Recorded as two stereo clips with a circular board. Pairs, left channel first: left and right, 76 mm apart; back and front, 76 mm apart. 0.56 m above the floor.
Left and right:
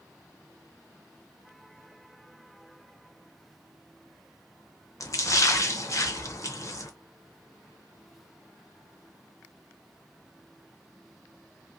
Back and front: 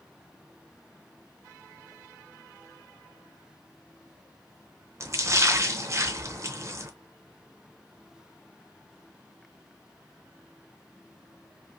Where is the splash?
50° left, 0.7 m.